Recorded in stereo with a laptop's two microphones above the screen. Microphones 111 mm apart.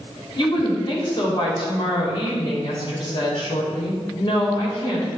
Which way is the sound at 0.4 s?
45° left (ahead or behind).